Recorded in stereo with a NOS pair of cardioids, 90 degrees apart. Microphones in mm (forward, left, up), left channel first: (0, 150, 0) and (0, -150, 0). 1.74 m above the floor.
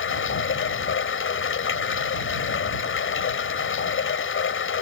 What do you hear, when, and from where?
0.0 s running water: 45° left